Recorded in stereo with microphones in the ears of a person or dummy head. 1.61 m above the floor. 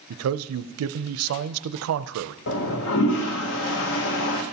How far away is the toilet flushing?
About 1.0 m.